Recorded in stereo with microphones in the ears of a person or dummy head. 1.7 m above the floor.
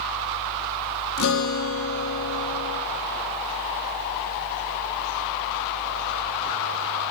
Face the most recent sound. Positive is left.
turn(degrees=70)  # may be behind; listen again after turning